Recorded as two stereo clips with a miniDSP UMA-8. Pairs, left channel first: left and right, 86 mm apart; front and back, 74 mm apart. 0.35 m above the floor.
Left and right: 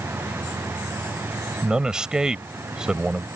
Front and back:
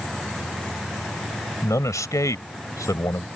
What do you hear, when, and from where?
1.6 s a man speaking: 15° right